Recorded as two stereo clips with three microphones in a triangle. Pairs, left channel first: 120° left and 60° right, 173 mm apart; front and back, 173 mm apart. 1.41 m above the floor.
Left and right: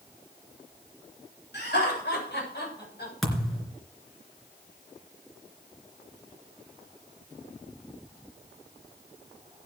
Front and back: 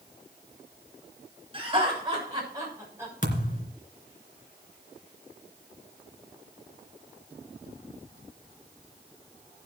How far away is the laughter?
About 7 m.